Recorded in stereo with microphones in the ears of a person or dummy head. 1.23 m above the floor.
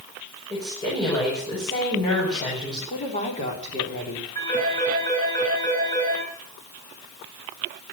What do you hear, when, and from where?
0.5 s a woman speaking: 20° left (ahead or behind), 6 m
2.9 s a woman speaking: 35° left (ahead or behind), 3.5 m
4.3 s a phone ringing: 20° left (ahead or behind), 8 m